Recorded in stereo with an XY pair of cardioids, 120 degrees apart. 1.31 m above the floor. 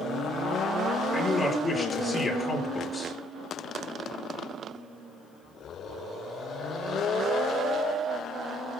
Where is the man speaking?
20° left, 5.5 m.